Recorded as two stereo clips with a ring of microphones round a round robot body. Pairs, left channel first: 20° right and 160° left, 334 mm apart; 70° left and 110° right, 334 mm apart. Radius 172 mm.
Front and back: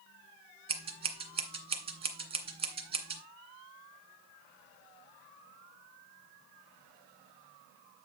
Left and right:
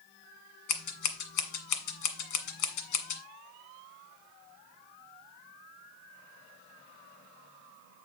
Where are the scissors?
85° left, 1.7 m.